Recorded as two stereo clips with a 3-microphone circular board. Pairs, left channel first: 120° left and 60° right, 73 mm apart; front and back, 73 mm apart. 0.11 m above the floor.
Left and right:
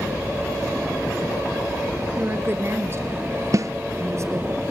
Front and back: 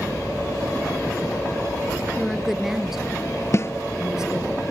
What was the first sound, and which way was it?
A woman speaking, 95° right.